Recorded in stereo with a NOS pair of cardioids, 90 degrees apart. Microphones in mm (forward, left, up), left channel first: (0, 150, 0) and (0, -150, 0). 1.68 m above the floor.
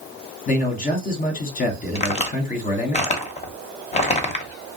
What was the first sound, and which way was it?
A man speaking, 30° left.